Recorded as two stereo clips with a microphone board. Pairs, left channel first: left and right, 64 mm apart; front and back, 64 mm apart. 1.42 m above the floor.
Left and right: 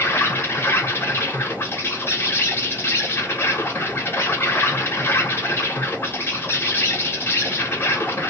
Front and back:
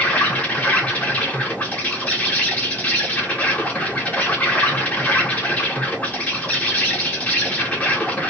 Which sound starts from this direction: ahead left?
An insect, at 0.0 s.